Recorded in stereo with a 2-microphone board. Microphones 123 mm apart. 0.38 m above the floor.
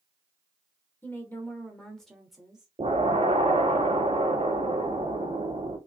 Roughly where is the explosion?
Right.